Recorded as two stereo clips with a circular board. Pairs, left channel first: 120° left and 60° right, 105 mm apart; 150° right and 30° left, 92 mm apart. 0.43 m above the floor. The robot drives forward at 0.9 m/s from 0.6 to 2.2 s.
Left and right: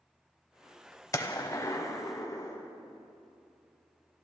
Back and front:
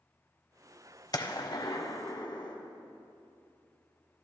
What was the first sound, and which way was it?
A gunshot, 175° left.